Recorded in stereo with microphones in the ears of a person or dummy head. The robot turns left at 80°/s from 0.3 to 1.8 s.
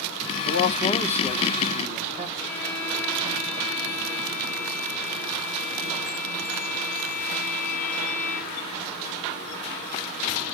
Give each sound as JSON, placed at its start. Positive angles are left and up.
{"t": 0.5, "sound": "a man speaking", "azimuth_deg": 65, "distance_m": 1.0}
{"t": 2.4, "sound": "a violin", "side_deg": 10, "distance_m": 6.0}